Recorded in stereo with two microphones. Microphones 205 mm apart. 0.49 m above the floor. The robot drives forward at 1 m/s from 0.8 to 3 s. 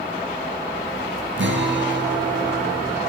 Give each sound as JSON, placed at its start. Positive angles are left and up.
{"t": 1.4, "sound": "a guitar", "side_deg": -80, "distance_m": 5.5}